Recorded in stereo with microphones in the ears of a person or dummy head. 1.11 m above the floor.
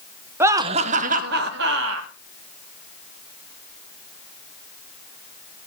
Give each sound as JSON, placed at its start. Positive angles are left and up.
{"t": 0.4, "sound": "laughter", "side_deg": -5, "distance_m": 0.8}